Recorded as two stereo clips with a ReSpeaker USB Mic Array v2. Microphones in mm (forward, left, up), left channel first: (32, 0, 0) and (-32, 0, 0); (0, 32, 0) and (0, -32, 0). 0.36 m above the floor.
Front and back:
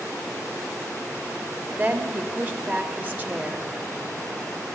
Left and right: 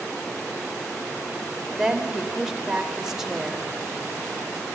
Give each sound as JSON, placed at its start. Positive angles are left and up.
{"t": 1.8, "sound": "a woman speaking", "azimuth_deg": -160, "distance_m": 1.0}